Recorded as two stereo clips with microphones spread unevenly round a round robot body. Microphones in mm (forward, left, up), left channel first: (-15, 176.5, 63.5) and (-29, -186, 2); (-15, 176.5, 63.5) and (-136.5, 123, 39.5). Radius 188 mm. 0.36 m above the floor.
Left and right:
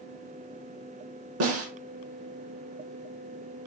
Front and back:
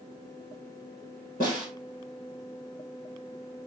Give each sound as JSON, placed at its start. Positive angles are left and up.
{"t": 1.4, "sound": "a snare drum", "azimuth_deg": -40, "distance_m": 1.0}